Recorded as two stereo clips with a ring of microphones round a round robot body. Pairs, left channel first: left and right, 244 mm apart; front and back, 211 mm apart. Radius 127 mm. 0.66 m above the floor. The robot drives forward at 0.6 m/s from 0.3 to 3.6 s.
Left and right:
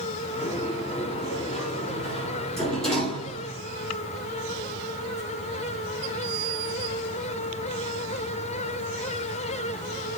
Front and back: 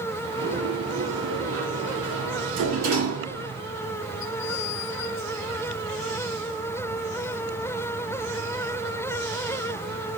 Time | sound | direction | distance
0.4 | a sliding door | 175° left | 5.5 m